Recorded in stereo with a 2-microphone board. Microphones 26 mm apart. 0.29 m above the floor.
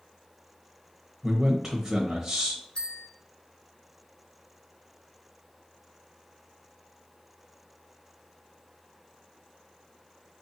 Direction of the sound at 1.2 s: 20° right (ahead or behind).